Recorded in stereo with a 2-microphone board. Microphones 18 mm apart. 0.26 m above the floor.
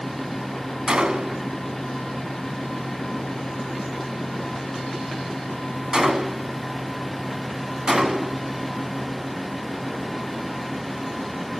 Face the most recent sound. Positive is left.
turn(degrees=-60)  # may be behind; listen again after turning